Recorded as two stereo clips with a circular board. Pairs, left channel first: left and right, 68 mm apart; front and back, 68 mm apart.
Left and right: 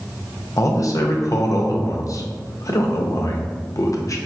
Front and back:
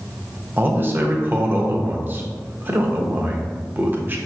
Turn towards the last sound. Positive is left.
turn(degrees=120)